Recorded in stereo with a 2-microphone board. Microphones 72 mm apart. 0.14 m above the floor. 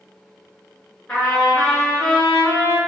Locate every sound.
1.1 s a trumpet: 15° left (ahead or behind), 1.4 m